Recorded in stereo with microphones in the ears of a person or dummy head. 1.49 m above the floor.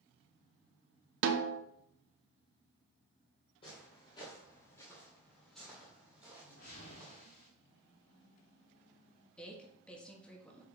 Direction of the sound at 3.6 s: 35° left (ahead or behind).